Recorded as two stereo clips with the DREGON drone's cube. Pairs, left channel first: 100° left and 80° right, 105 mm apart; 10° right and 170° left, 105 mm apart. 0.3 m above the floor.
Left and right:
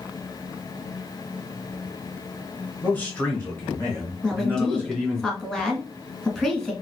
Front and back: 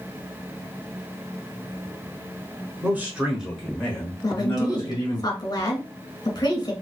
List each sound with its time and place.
2.8 s a man speaking: 140° left, 1.3 m; by 5.2 s 25° left, 1.7 m
4.2 s a woman speaking: 20° left, 1.4 m